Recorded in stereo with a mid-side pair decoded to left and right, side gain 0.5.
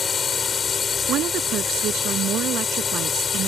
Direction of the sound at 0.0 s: 35° left.